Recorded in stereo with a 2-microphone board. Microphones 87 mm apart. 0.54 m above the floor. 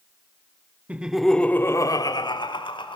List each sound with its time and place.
0.9 s laughter: 15° right (ahead or behind), 1.1 m; by 3.0 s 70° left (ahead or behind), 1.9 m